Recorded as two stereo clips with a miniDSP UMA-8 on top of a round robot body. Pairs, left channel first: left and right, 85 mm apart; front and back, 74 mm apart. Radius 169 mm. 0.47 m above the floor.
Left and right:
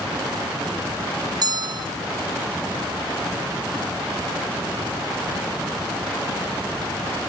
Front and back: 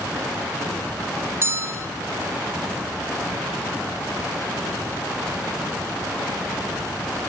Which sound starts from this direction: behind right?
A bell, at 1.4 s.